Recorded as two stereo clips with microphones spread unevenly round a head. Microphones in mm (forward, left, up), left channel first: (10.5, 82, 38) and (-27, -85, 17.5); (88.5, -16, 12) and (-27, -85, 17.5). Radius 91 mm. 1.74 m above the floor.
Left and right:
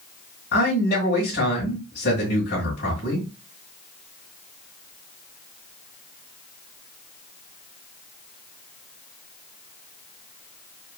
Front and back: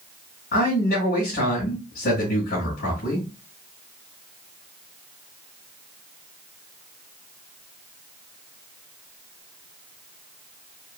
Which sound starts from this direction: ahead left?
A man speaking, at 0.5 s.